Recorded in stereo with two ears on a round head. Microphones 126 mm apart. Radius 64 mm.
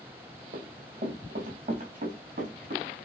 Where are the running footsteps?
60° right (ahead or behind), 3 m.